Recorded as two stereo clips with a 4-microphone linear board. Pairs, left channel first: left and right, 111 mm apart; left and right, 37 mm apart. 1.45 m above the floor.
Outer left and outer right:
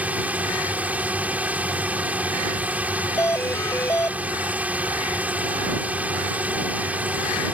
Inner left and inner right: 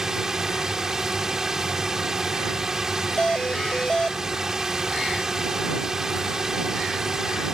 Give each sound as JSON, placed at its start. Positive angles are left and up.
{"t": 0.0, "sound": "a drone", "side_deg": -15}
{"t": 3.2, "sound": "a doorbell", "side_deg": 25}